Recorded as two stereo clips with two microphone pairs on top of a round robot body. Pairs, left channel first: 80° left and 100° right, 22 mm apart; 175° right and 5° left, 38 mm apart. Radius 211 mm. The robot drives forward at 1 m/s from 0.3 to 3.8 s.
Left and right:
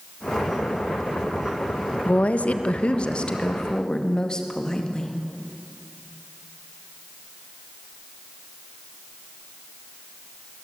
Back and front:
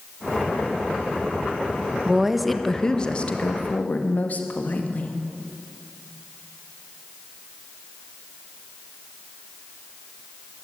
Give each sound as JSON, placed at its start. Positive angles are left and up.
{"t": 2.0, "sound": "a woman speaking", "azimuth_deg": 80, "distance_m": 1.5}